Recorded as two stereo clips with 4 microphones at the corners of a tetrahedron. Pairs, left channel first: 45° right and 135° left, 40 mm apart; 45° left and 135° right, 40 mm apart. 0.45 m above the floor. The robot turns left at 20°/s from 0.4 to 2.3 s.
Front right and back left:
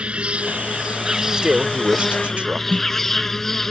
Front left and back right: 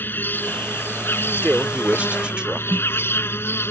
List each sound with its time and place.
0.0 s an insect: 75° left; by 3.7 s 35° left
1.4 s a man speaking: 170° right; by 2.6 s 175° left
2.7 s a snare drum: 175° right